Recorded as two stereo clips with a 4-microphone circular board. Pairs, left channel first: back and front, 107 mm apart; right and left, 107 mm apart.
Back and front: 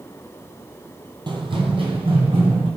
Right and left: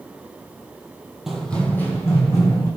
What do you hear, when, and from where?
1.3 s running footsteps: 5° left, 0.8 m; by 2.7 s 35° right, 2 m